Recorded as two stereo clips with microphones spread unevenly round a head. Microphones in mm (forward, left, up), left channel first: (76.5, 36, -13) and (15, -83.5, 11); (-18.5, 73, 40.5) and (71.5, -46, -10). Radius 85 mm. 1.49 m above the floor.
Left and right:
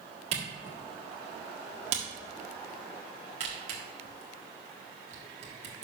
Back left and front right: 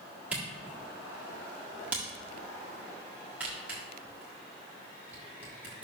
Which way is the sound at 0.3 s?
145° right.